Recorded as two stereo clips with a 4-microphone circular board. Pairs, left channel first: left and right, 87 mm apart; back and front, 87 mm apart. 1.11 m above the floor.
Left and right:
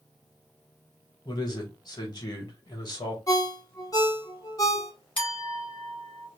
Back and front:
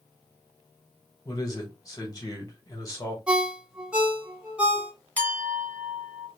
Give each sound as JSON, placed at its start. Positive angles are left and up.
{"t": 1.2, "sound": "a man speaking", "azimuth_deg": 130, "distance_m": 1.1}
{"t": 3.3, "sound": "a ringtone", "azimuth_deg": 70, "distance_m": 0.8}
{"t": 5.2, "sound": "a clink", "azimuth_deg": 105, "distance_m": 1.2}